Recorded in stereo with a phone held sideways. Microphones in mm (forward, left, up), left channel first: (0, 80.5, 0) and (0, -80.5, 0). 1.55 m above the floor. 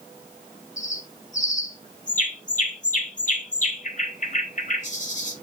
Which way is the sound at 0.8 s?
55° left (ahead or behind).